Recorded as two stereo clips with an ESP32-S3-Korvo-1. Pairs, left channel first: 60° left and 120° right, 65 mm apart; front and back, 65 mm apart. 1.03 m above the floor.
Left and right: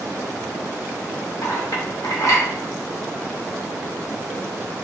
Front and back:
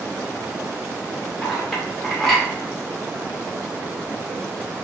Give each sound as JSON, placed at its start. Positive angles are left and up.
{"t": 1.4, "sound": "a clink", "azimuth_deg": 85, "distance_m": 1.7}